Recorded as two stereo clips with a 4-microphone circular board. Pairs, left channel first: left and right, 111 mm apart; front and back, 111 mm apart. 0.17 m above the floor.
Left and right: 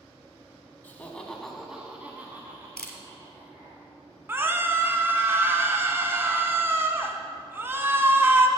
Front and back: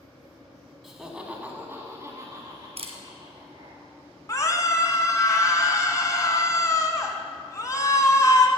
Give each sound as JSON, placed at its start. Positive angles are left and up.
{"t": 0.8, "sound": "laughter", "azimuth_deg": 90, "distance_m": 1.1}
{"t": 2.8, "sound": "a camera shutter", "azimuth_deg": 170, "distance_m": 1.4}
{"t": 4.3, "sound": "a scream", "azimuth_deg": -35, "distance_m": 1.2}